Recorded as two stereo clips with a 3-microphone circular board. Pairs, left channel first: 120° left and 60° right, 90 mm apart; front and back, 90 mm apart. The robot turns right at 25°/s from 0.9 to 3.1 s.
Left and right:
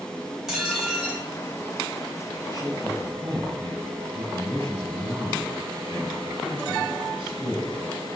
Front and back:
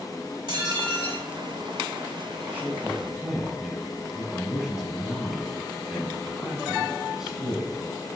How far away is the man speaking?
About 5 m.